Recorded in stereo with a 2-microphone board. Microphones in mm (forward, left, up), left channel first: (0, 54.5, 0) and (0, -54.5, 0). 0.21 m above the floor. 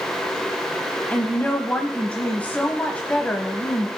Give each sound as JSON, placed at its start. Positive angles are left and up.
{"t": 1.1, "sound": "a woman speaking", "side_deg": 15, "distance_m": 0.9}